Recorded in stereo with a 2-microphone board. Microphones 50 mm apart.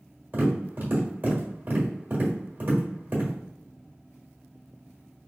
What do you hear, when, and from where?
0.3 s tapping: 45° right (ahead or behind), 1.2 m